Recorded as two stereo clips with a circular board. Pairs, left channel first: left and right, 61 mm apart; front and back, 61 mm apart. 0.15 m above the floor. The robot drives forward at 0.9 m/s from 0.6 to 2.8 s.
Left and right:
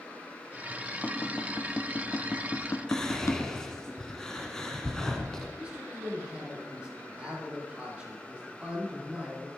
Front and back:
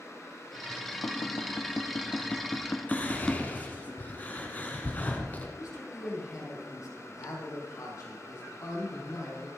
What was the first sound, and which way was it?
Tapping, 25° left.